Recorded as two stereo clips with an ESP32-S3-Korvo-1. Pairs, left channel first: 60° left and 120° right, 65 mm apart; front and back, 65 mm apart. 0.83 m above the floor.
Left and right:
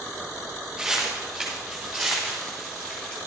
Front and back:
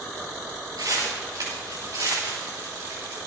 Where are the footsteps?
155° left, 6.5 m; by 3.2 s 135° left, 6 m.